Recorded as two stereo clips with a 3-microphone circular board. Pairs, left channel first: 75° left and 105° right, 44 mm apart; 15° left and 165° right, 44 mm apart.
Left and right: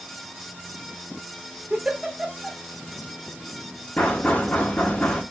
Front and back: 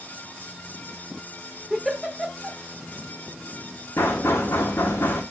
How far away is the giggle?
About 0.9 m.